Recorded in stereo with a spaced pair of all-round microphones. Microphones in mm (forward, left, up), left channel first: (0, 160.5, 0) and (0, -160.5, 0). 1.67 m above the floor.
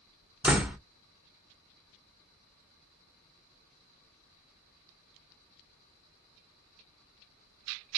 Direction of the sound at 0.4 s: 5° right (ahead or behind).